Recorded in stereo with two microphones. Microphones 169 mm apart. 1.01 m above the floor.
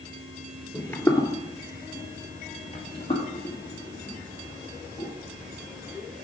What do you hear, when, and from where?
0.7 s footsteps: 5° left (ahead or behind), 1.2 m; by 5.1 s 30° left (ahead or behind), 3.5 m